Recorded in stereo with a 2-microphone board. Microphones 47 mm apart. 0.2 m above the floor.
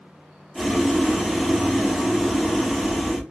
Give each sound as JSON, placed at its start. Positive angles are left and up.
{"t": 0.6, "sound": "boiling", "side_deg": -5, "distance_m": 0.6}